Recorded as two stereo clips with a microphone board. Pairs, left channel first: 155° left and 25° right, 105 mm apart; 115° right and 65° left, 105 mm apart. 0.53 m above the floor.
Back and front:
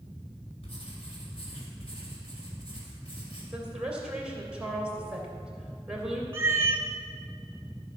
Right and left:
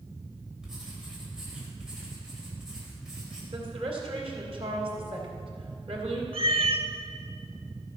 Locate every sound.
0.6 s writing: 150° left, 3 m
3.5 s a woman speaking: 60° left, 2.5 m
6.3 s a cat meowing: 45° left, 0.7 m